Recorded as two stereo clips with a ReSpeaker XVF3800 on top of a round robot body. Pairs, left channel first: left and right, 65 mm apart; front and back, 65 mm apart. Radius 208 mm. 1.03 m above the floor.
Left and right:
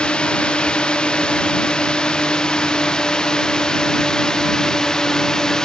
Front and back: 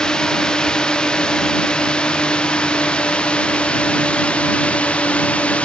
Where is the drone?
50° left; by 5.6 s 25° left.